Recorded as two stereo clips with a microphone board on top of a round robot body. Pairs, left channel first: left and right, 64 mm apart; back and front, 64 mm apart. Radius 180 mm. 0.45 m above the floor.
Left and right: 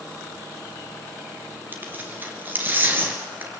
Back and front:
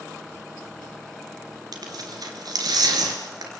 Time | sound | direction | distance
1.7 | tearing paper | 25° right | 2 m